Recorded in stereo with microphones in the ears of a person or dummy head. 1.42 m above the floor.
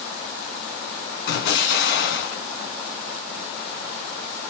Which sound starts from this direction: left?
An explosion, at 1.3 s.